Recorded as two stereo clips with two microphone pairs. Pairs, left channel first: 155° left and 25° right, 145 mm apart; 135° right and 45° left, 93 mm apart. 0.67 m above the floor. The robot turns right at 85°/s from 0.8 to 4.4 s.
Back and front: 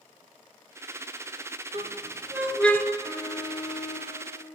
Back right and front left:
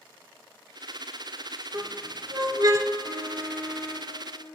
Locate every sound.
1.7 s a squeak: 5° right, 0.9 m; by 2.9 s 95° left, 0.9 m
3.0 s an alarm: 70° left, 3 m; by 4.2 s 165° left, 3 m